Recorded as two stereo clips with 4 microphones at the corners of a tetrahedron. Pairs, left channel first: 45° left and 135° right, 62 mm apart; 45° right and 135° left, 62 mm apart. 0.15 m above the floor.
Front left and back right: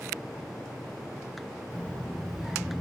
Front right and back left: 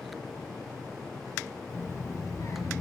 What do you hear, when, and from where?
1.7 s a child speaking: 15° right, 1.4 m; by 2.8 s 65° right, 1.4 m